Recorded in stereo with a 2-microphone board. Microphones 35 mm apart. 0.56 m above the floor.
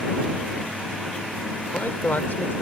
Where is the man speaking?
65° left (ahead or behind).